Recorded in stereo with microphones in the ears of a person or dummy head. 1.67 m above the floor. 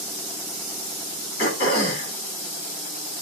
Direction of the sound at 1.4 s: 50° left (ahead or behind).